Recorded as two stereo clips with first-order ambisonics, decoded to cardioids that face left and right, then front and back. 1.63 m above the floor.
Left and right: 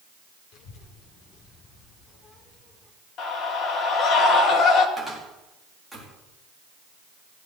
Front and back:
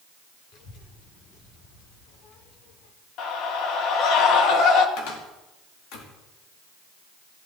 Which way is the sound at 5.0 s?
5° left.